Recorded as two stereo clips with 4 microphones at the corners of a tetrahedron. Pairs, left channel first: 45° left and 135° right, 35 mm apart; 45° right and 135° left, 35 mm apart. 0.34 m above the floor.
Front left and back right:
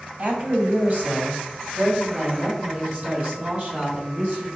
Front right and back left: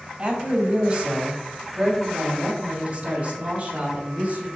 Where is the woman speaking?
165° right, 2.5 m; by 4.5 s straight behind, 4.5 m.